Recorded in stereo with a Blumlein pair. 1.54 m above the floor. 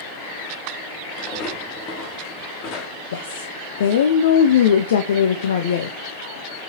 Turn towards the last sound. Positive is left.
turn(degrees=60)